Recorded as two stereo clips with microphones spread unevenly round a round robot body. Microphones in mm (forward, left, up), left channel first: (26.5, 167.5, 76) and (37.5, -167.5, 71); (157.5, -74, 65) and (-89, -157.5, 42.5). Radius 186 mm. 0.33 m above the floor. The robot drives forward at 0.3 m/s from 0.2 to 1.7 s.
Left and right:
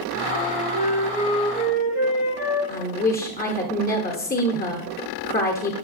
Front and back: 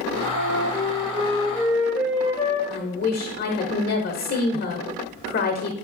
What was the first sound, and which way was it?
A flute, 65° left.